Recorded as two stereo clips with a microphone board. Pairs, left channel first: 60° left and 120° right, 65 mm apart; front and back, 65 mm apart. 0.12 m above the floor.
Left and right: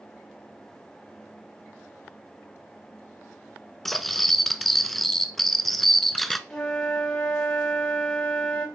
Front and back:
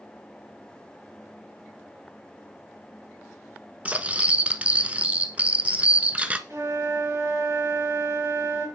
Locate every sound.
3.9 s cutlery clinking: 145° left, 0.7 m
6.5 s a flute: 145° left, 3.5 m